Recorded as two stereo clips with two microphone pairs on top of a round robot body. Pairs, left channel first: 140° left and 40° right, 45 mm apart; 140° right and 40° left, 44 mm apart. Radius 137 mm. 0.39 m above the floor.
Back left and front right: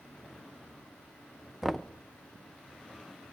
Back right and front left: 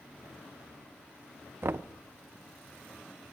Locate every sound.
1.6 s knocking: 55° left, 0.6 m